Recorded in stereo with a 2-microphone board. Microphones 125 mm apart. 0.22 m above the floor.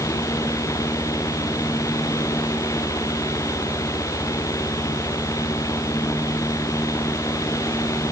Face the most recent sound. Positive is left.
No sound to turn to.